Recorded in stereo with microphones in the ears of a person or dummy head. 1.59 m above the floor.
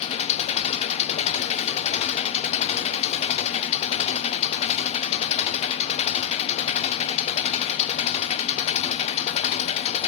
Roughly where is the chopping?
I don't hear chopping.